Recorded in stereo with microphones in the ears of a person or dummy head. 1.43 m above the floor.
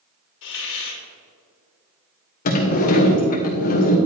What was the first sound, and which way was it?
A hiss, 70° left (ahead or behind).